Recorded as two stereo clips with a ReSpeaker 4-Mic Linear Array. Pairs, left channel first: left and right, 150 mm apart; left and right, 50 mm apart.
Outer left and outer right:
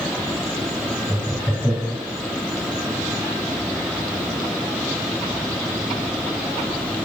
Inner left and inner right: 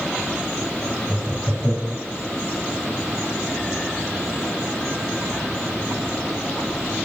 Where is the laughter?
20° right (ahead or behind), 1.6 m.